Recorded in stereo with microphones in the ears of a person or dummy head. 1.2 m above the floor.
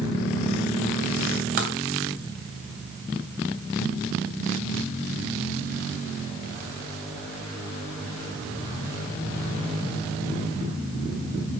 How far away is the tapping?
About 1.0 m.